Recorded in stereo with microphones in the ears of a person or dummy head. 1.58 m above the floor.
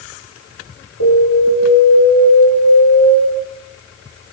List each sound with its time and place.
1.0 s an alarm: 90° left, 8.5 m